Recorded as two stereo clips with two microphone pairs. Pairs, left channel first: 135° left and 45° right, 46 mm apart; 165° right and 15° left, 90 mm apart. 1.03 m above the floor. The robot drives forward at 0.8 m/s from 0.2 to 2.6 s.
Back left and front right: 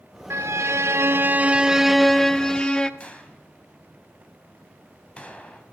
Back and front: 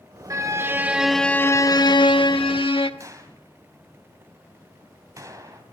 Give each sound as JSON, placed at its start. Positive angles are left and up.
{"t": 0.3, "sound": "a violin", "azimuth_deg": -35, "distance_m": 1.0}
{"t": 3.0, "sound": "a gunshot", "azimuth_deg": 70, "distance_m": 3.0}